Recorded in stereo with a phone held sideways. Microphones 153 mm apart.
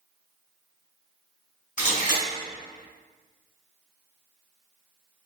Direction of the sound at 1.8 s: 50° left (ahead or behind).